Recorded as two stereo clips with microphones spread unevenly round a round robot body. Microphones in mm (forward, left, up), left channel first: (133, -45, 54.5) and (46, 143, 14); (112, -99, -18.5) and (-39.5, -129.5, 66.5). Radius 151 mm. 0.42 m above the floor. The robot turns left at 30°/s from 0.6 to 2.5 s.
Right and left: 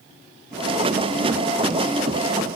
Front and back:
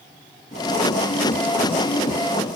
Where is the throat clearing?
No throat clearing in this recording.